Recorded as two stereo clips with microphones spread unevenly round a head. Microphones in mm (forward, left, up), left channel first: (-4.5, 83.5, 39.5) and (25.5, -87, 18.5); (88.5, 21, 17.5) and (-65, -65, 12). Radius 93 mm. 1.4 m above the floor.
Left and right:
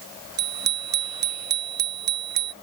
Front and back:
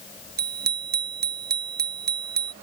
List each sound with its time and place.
0.4 s a bicycle bell: 115° right